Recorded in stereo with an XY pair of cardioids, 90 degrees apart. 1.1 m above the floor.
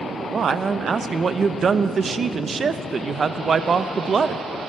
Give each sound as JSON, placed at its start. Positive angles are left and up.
{"t": 0.3, "sound": "a man speaking", "azimuth_deg": -40, "distance_m": 0.6}